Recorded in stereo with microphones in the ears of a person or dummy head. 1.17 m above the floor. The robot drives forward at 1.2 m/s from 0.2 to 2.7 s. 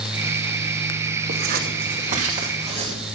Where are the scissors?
65° right (ahead or behind), 1.9 m; by 3.0 s 35° right (ahead or behind), 3 m.